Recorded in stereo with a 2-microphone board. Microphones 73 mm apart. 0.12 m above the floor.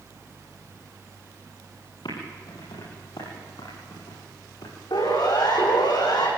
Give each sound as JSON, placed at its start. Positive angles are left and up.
{"t": 2.0, "sound": "typing on a keyboard", "side_deg": 75, "distance_m": 8.0}
{"t": 4.9, "sound": "a siren", "side_deg": 80, "distance_m": 9.0}